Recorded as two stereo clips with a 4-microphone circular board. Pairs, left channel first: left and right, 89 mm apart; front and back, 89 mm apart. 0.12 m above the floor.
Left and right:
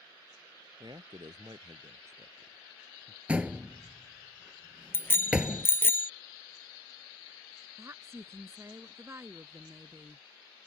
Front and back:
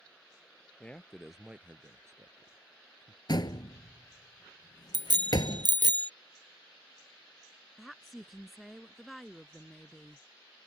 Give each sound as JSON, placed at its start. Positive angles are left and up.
{"t": 0.8, "sound": "a man speaking", "azimuth_deg": -75}
{"t": 3.3, "sound": "a door slam", "azimuth_deg": -15}
{"t": 4.9, "sound": "a bicycle bell", "azimuth_deg": 150}
{"t": 7.8, "sound": "a woman speaking", "azimuth_deg": -90}